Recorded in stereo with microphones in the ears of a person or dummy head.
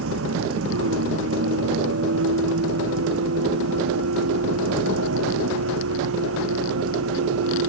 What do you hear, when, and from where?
0.0 s a vehicle: 85° right